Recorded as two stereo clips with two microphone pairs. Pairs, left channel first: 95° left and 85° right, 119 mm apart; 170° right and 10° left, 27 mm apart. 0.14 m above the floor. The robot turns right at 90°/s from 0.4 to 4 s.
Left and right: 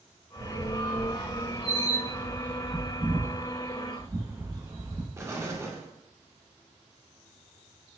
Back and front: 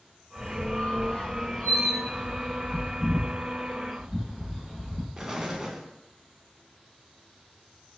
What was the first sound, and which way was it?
A squeak, 145° left.